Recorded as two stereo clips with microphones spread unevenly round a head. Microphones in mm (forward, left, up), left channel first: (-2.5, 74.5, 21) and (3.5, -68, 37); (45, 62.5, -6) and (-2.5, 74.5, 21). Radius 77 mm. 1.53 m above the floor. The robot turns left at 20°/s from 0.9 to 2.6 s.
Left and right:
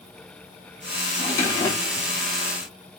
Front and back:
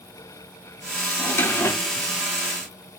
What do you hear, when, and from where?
1.2 s a drawer: 40° left, 1.0 m; by 2.1 s 20° left, 1.0 m